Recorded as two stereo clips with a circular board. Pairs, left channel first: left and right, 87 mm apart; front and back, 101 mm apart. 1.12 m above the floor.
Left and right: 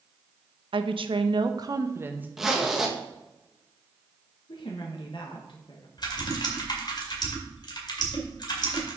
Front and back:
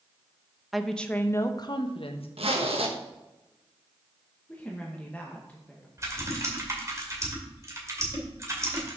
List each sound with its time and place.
0.7 s a woman speaking: 90° right, 0.9 m; by 2.3 s 20° right, 1.0 m
2.4 s a zipper: 175° right, 1.2 m
4.5 s a woman speaking: 75° left, 1.1 m
6.0 s typing on a keyboard: 120° left, 2 m